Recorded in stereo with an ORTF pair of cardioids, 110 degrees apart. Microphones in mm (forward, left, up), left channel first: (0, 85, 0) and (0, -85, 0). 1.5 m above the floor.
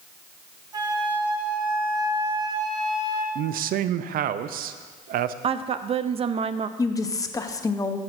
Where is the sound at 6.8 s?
20° left, 0.9 m.